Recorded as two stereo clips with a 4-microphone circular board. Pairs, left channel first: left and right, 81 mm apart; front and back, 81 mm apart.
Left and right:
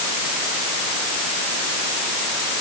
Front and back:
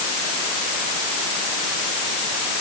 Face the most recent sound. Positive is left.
No sound to turn to.